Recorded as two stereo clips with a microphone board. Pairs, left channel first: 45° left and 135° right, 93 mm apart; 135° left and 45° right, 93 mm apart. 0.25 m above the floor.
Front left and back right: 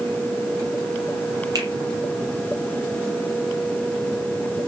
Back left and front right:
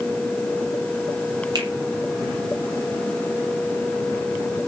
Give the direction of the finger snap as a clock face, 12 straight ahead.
3 o'clock.